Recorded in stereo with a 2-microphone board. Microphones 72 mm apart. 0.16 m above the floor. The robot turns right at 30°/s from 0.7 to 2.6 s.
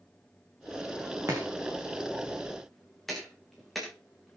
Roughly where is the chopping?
Right.